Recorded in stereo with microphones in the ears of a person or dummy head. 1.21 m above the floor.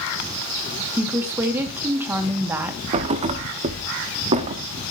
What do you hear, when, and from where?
1.0 s a woman speaking: 10° right (ahead or behind), 1.8 m
2.9 s a thud: 30° right (ahead or behind), 0.9 m